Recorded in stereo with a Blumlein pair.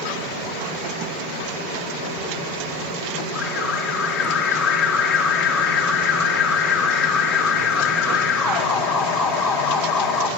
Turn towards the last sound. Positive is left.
turn(degrees=25)